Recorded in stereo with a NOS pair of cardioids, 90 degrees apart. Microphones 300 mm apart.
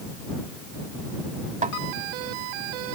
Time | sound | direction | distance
1.6 | a snare drum | 25° right | ?